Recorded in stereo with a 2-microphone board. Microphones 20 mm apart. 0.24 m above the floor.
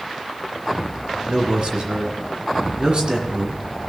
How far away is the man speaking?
About 2.5 m.